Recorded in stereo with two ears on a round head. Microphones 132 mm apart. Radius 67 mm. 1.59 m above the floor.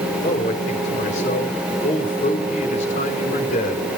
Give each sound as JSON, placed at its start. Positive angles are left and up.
{"t": 0.2, "sound": "a man speaking", "side_deg": 55, "distance_m": 4.0}